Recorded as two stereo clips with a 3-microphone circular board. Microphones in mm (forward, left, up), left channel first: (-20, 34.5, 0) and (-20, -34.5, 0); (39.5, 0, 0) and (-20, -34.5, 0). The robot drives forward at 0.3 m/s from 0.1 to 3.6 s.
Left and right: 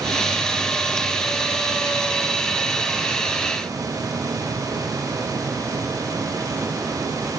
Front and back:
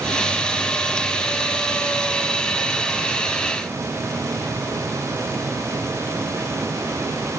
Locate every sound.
Only background noise.